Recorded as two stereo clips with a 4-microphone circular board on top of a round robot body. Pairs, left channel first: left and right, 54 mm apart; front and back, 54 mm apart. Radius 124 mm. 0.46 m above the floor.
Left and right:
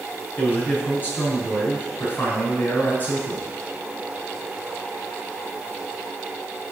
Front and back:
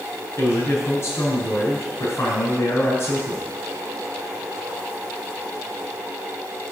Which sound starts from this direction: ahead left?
A man speaking, at 0.4 s.